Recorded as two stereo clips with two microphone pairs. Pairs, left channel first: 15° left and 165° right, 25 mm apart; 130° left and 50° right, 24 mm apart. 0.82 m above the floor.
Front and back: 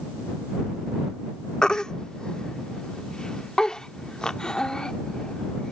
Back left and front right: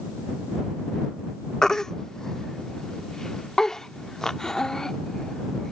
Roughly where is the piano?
No piano in this recording.